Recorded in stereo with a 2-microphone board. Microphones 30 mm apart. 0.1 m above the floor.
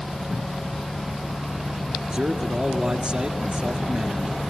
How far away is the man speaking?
About 1.9 m.